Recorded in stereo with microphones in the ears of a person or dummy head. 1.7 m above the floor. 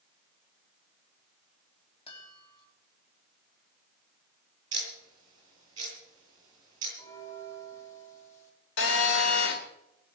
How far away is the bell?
About 4.5 m.